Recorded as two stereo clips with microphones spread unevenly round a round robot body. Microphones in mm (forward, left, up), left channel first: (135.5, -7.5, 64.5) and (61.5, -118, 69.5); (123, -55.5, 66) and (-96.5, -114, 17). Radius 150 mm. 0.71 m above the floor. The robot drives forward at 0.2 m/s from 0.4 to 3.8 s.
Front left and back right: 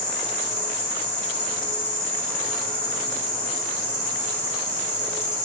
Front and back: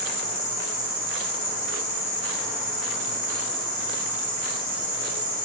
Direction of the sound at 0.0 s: 80° left.